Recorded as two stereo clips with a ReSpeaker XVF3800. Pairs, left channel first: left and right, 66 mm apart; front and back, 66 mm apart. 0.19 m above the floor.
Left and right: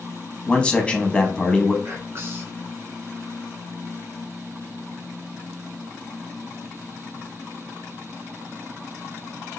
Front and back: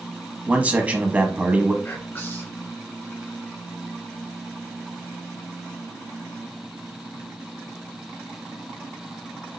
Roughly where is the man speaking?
Behind left.